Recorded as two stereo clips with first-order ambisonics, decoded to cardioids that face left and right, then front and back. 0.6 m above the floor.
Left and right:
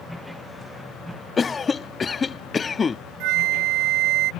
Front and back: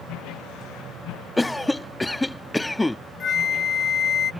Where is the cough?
70° left.